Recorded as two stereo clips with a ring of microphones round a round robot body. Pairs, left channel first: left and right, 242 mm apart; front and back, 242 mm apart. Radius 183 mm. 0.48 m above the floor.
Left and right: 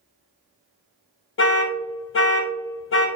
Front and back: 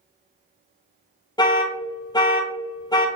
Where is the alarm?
70° left, 0.7 m.